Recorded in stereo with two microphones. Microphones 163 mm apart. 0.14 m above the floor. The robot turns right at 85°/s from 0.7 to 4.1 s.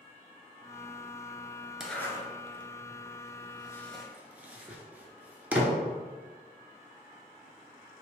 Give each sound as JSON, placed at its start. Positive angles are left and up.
{"t": 1.8, "sound": "a zipper", "side_deg": -5, "distance_m": 0.5}